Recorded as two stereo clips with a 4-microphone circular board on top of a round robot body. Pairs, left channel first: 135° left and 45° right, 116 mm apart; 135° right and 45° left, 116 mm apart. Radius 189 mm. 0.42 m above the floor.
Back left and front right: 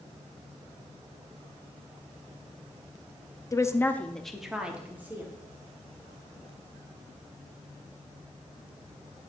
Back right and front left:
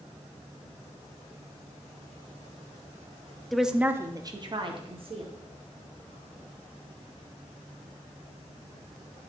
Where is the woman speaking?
140° left, 1.2 m; by 5.3 s 25° left, 1.9 m.